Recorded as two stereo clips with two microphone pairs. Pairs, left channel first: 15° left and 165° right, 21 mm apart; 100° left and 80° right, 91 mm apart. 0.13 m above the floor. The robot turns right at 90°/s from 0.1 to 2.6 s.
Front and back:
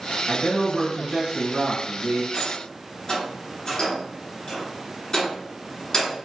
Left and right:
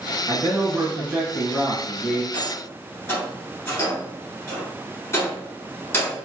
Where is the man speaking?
85° right, 1.6 m; by 2.2 s 90° left, 1.6 m.